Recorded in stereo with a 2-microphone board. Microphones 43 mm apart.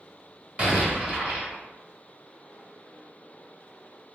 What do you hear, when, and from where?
0.6 s an explosion: 35° right (ahead or behind), 0.9 m